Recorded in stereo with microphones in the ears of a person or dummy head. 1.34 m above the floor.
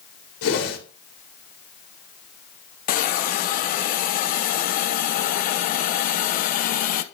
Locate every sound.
0.4 s a whoosh: 80° left, 2 m
2.9 s a hiss: 50° left (ahead or behind), 0.5 m